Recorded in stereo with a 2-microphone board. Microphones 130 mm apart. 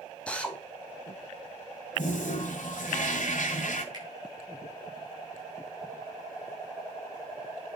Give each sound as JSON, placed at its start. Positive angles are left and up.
{"t": 0.3, "sound": "a drill", "side_deg": 10, "distance_m": 1.7}
{"t": 1.9, "sound": "a toilet flushing", "side_deg": 70, "distance_m": 1.7}
{"t": 3.9, "sound": "a finger snap", "side_deg": -30, "distance_m": 6.0}